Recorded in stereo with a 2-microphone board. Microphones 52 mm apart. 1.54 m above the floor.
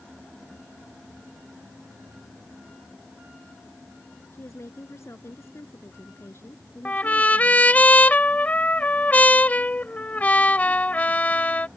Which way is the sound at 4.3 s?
60° left (ahead or behind).